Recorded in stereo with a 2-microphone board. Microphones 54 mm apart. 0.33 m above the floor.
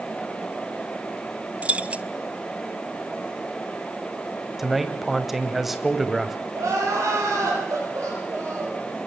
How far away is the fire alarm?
No fire alarm in this recording.